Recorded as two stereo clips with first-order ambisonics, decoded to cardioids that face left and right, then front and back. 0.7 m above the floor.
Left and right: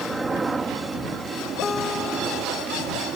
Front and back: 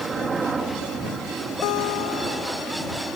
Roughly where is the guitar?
Ahead.